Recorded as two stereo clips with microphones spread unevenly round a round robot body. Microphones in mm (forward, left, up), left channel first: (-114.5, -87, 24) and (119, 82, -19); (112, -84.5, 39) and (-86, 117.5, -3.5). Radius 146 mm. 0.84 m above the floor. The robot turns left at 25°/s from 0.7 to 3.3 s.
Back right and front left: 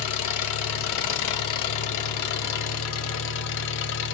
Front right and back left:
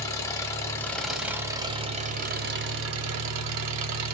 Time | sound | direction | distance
0.0 | an engine running | 120° right | 1.2 m